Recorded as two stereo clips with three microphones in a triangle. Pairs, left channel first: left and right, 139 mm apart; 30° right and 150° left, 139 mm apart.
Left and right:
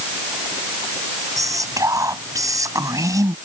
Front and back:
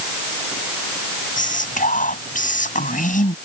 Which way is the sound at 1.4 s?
25° right.